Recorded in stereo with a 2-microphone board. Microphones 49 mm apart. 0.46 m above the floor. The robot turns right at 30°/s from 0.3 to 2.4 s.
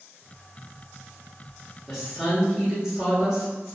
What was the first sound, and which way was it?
A woman speaking, 15° right (ahead or behind).